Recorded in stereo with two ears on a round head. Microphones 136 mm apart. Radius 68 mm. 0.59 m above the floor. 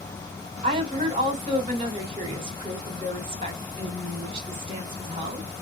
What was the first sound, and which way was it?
A woman speaking, 35° right (ahead or behind).